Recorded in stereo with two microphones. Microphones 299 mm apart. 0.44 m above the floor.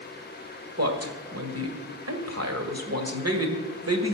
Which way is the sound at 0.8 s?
55° right (ahead or behind).